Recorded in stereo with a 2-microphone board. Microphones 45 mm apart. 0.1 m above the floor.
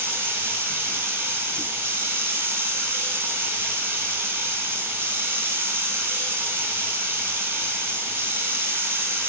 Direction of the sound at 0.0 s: 55° right (ahead or behind).